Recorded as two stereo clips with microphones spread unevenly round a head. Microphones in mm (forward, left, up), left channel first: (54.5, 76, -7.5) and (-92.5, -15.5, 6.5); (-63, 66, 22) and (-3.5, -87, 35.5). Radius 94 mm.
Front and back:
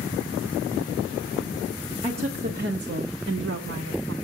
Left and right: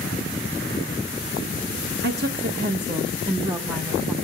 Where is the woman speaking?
80° right, 1.1 m; by 4.1 s 145° right, 1.5 m.